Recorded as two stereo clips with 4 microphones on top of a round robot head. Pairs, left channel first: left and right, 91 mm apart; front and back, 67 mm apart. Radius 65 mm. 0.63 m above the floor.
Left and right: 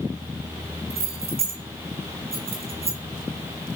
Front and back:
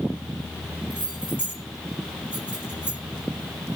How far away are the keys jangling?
About 5 m.